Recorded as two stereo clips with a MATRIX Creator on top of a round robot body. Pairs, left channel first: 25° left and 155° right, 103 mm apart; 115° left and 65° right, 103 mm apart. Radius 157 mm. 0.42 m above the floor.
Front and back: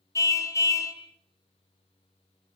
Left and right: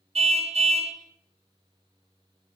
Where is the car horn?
40° right, 2.5 m.